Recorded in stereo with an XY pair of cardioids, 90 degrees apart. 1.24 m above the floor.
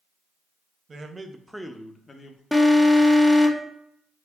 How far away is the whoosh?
No whoosh in this recording.